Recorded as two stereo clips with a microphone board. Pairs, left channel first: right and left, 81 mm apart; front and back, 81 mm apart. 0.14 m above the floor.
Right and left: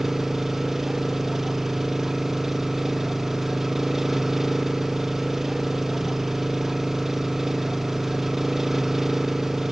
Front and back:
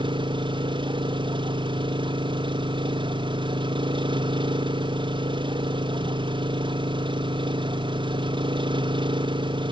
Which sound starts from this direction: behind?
An engine running, at 0.0 s.